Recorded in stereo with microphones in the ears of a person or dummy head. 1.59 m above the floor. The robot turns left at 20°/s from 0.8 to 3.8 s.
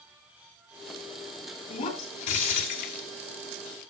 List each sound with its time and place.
1.7 s breaking glass: 35° left (ahead or behind), 2.5 m; by 3.0 s 55° left (ahead or behind), 2.5 m